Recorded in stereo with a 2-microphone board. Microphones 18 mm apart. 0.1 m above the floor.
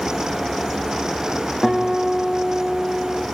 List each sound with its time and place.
1.6 s a guitar: 5° right (ahead or behind), 5.5 m